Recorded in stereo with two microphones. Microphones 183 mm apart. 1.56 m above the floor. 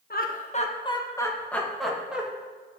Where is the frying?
I don't hear frying.